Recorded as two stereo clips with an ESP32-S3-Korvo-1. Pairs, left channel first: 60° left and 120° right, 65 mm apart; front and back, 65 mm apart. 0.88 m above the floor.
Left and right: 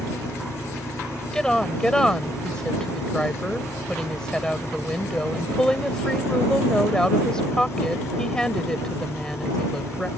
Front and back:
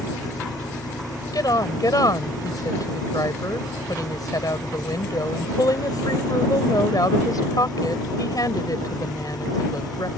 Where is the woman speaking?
20° right.